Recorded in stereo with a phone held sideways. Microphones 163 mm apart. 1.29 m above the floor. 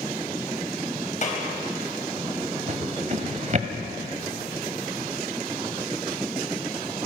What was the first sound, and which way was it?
A clap, 50° left (ahead or behind).